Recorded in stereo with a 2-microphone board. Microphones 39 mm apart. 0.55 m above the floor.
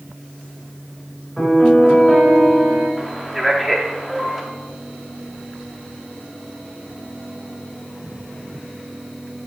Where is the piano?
Centre (ahead or behind), 3.5 m.